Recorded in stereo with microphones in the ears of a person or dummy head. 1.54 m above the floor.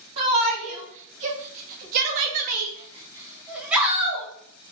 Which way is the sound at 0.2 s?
40° right (ahead or behind).